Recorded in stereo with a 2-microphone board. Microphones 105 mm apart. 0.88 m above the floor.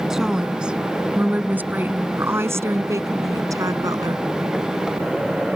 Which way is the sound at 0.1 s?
5° right (ahead or behind).